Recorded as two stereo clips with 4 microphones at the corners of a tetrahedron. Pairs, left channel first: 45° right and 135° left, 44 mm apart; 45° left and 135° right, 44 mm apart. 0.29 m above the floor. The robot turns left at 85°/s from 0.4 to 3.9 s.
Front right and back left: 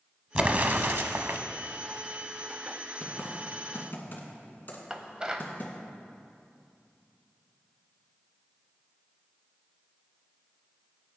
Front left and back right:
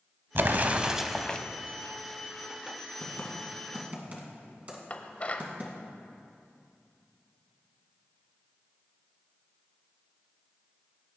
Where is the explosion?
165° right, 0.7 m; by 1.4 s 105° left, 0.7 m.